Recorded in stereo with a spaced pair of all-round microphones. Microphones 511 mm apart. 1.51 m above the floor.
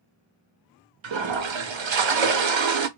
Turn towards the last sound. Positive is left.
turn(degrees=-65)  # may be behind; listen again after turning